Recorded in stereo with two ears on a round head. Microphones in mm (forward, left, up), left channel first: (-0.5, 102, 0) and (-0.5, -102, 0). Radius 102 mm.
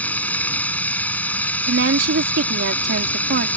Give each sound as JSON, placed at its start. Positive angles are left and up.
{"t": 0.0, "sound": "running water", "side_deg": 5}
{"t": 1.7, "sound": "a woman speaking", "side_deg": -55}